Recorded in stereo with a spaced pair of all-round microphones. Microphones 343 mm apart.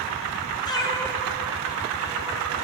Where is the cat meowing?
15° left (ahead or behind), 2 m; by 2.5 s 10° right (ahead or behind), 2.5 m.